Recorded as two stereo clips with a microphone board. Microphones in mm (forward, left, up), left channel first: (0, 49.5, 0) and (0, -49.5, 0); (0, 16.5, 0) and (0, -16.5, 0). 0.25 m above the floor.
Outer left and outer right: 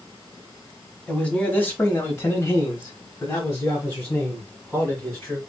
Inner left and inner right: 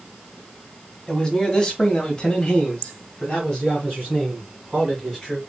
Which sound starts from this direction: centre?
A man speaking, at 1.1 s.